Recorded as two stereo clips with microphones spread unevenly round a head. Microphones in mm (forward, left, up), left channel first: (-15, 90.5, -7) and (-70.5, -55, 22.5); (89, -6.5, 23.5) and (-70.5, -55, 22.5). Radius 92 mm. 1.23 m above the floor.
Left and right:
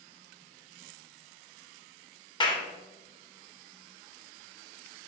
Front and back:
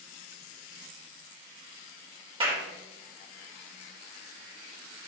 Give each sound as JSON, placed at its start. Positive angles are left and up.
{"t": 2.4, "sound": "a clap", "azimuth_deg": 130, "distance_m": 3.0}